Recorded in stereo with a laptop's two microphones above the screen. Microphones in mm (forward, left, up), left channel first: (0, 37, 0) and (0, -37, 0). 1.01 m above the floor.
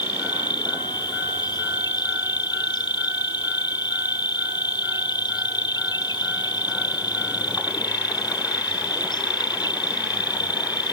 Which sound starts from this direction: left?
An insect, at 0.0 s.